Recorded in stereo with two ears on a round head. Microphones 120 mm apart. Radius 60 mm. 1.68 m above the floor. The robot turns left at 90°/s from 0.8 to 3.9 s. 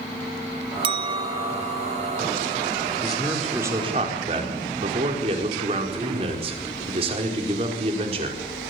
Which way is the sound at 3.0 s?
35° left.